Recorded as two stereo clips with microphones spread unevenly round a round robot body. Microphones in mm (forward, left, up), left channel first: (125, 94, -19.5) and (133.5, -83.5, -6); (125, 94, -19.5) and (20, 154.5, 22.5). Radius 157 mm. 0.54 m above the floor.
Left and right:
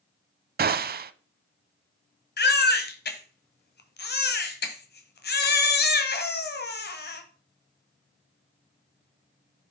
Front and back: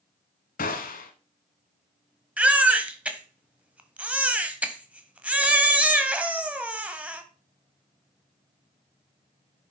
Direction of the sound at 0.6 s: 65° right.